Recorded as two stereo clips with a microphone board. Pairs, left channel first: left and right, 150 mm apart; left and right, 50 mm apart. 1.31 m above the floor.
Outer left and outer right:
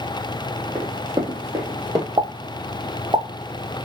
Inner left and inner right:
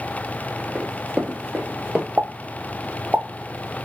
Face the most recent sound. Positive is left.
turn(degrees=-30)  # may be behind; listen again after turning